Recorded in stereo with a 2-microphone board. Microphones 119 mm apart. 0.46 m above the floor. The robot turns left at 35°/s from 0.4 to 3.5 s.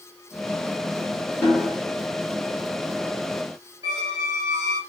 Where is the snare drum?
25° left (ahead or behind), 1.1 m; by 1.8 s 20° left (ahead or behind), 1.1 m.